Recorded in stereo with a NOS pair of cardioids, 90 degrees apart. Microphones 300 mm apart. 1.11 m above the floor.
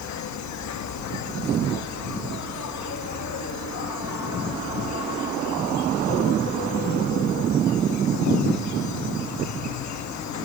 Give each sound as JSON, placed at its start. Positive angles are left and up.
{"t": 0.0, "sound": "an insect", "azimuth_deg": 65, "distance_m": 1.1}